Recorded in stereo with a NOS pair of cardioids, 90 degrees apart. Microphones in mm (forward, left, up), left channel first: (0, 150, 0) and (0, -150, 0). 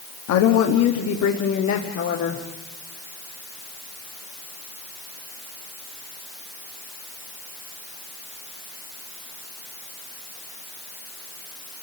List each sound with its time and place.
0.3 s a woman speaking: 70° left, 1.5 m; by 2.4 s 65° left, 3 m